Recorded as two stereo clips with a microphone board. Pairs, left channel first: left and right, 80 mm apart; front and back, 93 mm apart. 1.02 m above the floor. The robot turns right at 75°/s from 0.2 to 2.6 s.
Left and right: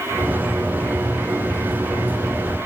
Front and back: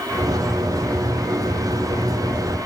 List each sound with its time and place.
Only background noise.